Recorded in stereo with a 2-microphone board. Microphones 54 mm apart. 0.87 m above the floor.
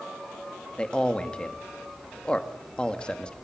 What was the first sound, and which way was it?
A man speaking, 20° left (ahead or behind).